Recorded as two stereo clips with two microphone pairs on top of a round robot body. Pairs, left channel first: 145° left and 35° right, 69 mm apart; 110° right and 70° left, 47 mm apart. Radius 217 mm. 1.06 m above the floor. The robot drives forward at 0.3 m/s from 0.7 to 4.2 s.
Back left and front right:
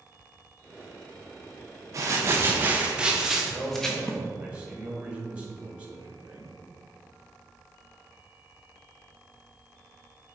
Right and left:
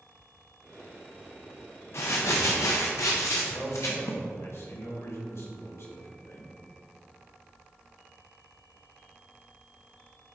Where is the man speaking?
105° right, 2 m; by 6.5 s 110° right, 2.5 m.